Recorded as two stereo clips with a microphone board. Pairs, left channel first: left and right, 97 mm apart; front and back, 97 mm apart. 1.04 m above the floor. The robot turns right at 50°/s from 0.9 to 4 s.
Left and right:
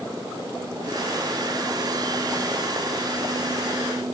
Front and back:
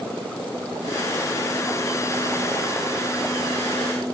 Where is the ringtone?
I don't hear a ringtone.